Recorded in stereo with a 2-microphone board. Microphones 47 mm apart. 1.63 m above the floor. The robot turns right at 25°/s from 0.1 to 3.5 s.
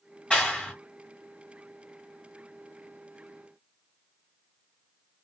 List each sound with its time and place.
0.3 s a clap: 20° left (ahead or behind), 1.4 m; by 0.7 s 30° left (ahead or behind), 1.4 m